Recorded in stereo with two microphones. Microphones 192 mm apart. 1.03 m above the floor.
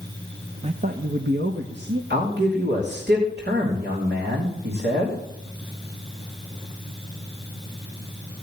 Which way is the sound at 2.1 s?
65° right (ahead or behind).